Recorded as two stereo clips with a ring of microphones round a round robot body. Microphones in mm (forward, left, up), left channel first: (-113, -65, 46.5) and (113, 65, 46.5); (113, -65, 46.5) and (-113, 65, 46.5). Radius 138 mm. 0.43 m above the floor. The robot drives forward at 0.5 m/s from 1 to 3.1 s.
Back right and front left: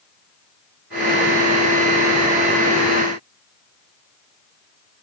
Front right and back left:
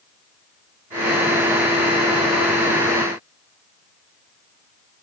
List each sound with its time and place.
Only background noise.